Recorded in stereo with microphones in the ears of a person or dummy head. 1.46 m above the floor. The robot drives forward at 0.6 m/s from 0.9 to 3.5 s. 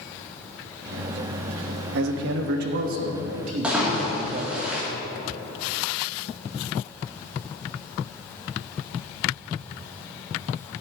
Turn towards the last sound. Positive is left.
turn(degrees=-10)  # may be behind; listen again after turning